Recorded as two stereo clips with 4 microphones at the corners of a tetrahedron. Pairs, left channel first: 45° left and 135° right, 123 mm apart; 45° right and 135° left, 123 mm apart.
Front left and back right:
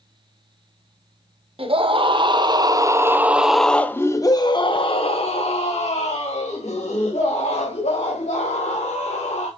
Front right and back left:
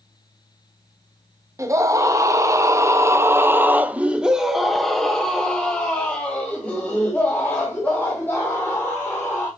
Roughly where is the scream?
Behind.